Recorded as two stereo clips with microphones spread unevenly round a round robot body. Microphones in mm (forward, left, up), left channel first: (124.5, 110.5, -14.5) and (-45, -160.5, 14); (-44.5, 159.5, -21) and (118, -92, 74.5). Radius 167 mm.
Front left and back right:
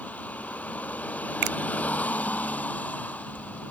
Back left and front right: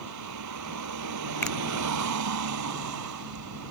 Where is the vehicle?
30° right.